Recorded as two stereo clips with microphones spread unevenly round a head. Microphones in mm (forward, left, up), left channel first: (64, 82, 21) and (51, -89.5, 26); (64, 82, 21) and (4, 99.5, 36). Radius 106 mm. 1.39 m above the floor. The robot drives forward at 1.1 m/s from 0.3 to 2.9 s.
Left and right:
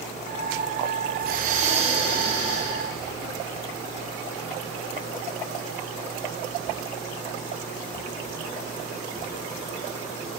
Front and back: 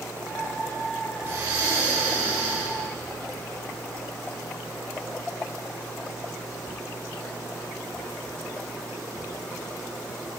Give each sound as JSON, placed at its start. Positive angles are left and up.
{"t": 1.2, "sound": "breathing", "azimuth_deg": -125, "distance_m": 0.6}